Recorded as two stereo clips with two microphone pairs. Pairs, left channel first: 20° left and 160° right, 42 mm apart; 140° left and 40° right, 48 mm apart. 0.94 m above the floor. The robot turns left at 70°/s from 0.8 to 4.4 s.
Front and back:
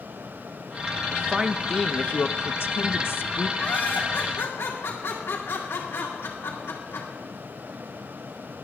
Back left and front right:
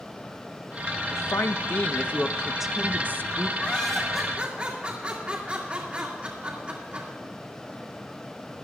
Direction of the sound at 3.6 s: 65° left.